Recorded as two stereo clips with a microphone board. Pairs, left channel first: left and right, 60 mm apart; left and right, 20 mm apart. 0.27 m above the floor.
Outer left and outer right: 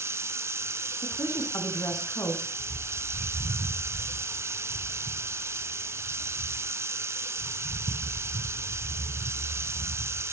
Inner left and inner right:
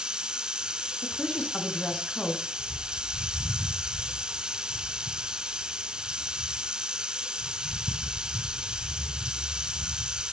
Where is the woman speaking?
70° left (ahead or behind), 2.5 m.